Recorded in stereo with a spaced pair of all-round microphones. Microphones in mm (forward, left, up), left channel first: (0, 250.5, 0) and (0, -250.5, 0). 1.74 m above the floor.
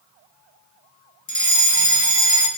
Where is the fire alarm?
35° left (ahead or behind), 4 m.